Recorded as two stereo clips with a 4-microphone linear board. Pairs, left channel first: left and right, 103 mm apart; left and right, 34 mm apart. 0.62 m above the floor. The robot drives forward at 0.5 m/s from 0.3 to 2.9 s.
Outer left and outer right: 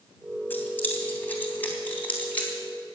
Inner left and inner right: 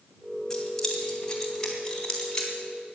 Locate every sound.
0.5 s keys jangling: 20° left (ahead or behind), 3 m; by 2.5 s 15° left (ahead or behind), 4 m